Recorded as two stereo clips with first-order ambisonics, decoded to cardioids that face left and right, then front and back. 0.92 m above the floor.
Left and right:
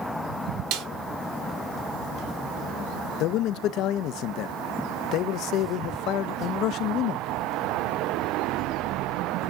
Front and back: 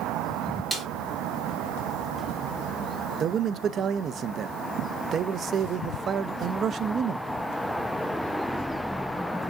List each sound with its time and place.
0.7 s a snare drum: 95° right, 1.7 m
3.2 s a man speaking: 125° left, 0.5 m